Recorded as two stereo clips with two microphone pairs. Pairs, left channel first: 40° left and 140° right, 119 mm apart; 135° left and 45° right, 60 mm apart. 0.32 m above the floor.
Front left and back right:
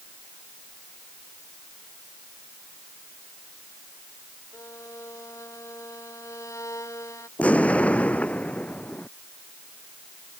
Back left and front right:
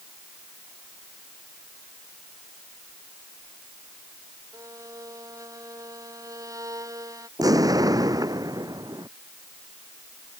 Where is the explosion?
35° right.